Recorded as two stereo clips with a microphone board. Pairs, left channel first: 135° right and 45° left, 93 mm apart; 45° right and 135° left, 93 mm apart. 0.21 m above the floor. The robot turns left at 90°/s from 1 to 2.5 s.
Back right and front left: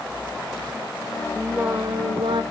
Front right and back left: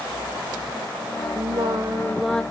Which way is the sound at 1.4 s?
130° left.